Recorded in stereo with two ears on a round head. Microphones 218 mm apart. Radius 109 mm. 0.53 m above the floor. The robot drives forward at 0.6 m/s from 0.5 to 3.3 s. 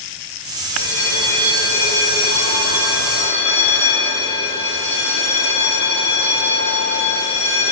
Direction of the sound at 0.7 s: 70° right (ahead or behind).